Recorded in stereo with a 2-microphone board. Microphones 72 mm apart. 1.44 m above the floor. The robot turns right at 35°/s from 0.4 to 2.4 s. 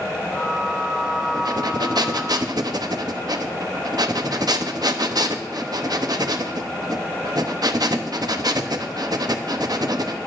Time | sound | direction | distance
1.3 | breathing | 110° right | 0.8 m